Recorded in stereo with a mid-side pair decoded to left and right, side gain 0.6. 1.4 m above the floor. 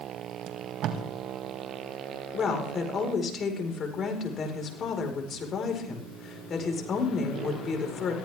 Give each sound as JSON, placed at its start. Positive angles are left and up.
{"t": 0.5, "sound": "tape being pulled", "azimuth_deg": -60, "distance_m": 2.0}
{"t": 2.3, "sound": "a woman speaking", "azimuth_deg": 35, "distance_m": 5.0}